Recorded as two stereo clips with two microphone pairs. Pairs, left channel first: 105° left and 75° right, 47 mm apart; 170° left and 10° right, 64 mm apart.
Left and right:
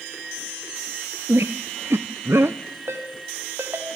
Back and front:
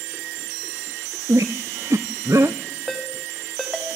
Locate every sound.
1.3 s a squeak: 45° right, 0.9 m
2.9 s a ringtone: 105° right, 4.5 m